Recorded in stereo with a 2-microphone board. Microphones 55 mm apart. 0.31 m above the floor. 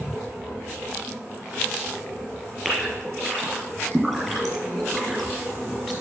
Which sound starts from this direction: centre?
A gasp, at 2.6 s.